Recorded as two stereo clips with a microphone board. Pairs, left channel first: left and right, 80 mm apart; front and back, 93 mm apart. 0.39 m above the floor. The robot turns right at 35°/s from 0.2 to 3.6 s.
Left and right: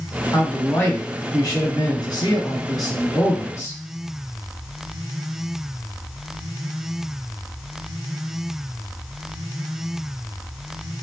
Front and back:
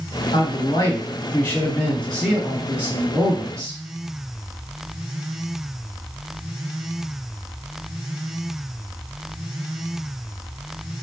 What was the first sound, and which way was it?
A man speaking, 20° left.